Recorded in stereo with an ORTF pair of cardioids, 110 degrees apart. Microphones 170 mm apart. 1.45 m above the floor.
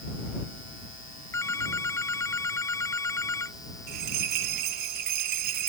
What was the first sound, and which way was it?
A phone ringing, 15° left.